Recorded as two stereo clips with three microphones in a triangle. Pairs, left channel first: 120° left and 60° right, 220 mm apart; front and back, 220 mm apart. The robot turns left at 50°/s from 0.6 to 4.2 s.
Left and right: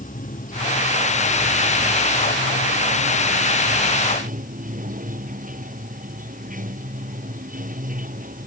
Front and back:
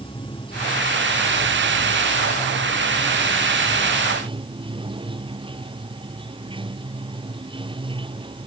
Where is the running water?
70° left; by 8.5 s 110° right.